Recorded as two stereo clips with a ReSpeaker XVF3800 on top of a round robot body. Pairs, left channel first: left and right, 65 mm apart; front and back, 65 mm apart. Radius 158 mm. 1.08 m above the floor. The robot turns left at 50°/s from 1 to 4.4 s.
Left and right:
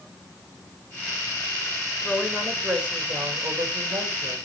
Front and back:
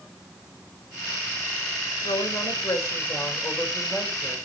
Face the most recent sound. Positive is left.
turn(degrees=-105)